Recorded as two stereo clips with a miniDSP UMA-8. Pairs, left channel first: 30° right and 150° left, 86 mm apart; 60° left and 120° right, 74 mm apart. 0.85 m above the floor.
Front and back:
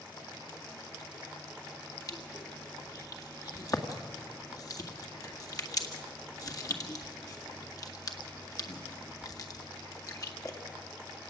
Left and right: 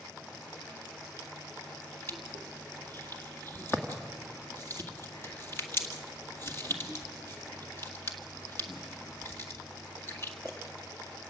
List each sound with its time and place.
2.1 s crushing: 10° left, 1.9 m